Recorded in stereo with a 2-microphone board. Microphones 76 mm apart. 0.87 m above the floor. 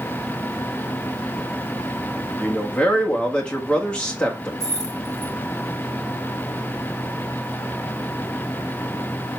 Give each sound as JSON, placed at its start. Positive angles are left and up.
{"t": 2.4, "sound": "a man speaking", "side_deg": 15, "distance_m": 1.2}
{"t": 4.6, "sound": "keys jangling", "side_deg": -45, "distance_m": 3.5}